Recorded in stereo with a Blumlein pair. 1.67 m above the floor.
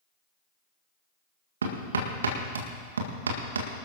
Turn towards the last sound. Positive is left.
turn(degrees=-70)